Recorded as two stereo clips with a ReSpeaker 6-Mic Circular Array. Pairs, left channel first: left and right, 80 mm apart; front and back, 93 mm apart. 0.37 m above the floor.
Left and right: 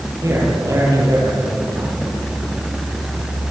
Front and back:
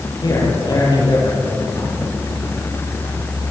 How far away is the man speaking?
About 9.5 m.